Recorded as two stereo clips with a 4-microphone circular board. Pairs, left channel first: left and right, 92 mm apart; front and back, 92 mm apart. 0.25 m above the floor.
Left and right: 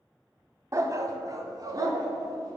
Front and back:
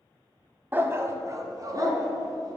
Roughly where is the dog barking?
Behind right.